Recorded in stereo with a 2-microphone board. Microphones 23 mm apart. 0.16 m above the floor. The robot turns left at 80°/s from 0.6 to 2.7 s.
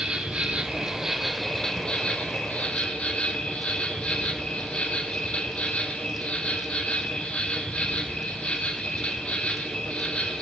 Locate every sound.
0.0 s an insect: 120° right, 1.4 m; by 10.4 s 70° left, 1.4 m